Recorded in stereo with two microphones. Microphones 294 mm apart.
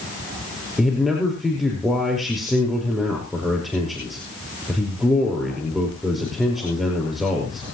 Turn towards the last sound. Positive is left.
turn(degrees=0)  # may be behind; listen again after turning